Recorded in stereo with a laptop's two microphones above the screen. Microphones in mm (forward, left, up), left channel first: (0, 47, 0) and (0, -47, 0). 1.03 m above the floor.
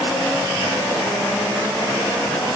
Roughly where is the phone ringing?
I don't hear a phone ringing.